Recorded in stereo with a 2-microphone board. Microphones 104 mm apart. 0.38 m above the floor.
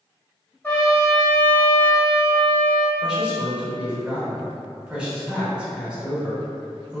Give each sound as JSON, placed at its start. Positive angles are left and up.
{"t": 0.6, "sound": "a trumpet", "side_deg": 20, "distance_m": 0.9}
{"t": 3.0, "sound": "a man speaking", "side_deg": -10, "distance_m": 0.9}